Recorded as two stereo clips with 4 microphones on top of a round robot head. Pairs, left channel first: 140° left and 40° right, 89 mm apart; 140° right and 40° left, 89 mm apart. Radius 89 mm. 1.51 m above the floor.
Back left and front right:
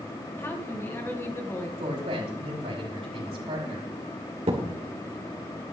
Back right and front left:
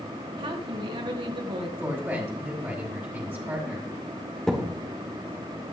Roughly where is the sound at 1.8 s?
Ahead right.